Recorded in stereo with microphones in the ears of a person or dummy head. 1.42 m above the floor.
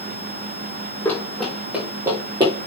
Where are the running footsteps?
10° left (ahead or behind), 3.5 m; by 2.5 s 25° right (ahead or behind), 3.5 m.